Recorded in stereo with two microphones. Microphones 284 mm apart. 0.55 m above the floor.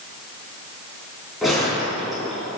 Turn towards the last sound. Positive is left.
turn(degrees=0)  # may be behind; listen again after turning